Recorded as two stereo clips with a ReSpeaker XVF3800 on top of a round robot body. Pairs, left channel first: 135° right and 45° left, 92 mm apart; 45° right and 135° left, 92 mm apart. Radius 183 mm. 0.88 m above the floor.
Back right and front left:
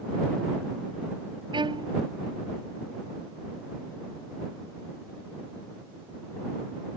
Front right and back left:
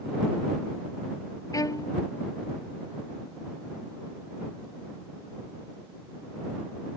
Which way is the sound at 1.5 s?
10° left.